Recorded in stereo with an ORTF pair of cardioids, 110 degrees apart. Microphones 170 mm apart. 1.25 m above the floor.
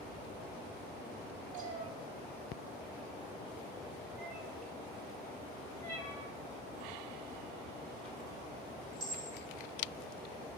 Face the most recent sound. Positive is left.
turn(degrees=25)